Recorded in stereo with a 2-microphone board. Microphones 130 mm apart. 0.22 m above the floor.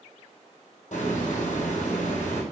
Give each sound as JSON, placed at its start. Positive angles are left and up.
{"t": 0.9, "sound": "a hiss", "side_deg": 70, "distance_m": 2.0}